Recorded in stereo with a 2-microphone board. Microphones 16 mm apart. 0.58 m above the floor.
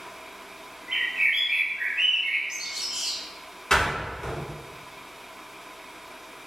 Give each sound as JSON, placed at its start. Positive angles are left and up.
{"t": 0.9, "sound": "a bird", "side_deg": -70, "distance_m": 1.1}
{"t": 3.7, "sound": "a door slam", "side_deg": 50, "distance_m": 1.9}